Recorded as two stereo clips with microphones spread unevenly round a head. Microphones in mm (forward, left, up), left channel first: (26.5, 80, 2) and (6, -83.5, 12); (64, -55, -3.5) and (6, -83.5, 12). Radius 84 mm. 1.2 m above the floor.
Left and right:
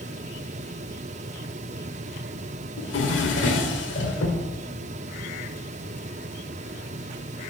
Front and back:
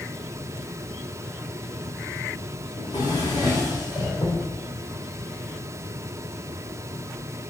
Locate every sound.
2.8 s a drawer: 80° left, 1.6 m